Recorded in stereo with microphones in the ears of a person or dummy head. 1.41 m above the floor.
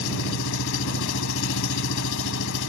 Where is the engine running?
65° left (ahead or behind).